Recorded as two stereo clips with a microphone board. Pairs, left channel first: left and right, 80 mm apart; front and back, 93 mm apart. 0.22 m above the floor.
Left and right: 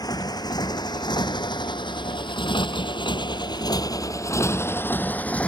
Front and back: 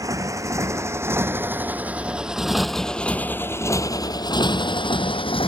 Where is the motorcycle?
125° left; by 5.5 s 15° left.